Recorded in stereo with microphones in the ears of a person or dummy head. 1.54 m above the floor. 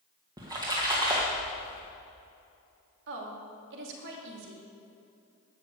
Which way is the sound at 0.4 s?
20° right (ahead or behind).